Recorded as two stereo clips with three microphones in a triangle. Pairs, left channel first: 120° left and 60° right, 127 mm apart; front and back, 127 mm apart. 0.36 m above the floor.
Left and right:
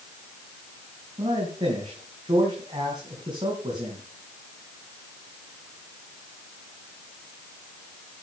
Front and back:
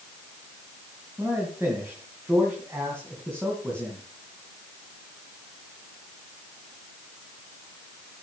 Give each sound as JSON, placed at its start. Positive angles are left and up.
{"t": 1.2, "sound": "a man speaking", "azimuth_deg": -110, "distance_m": 3.0}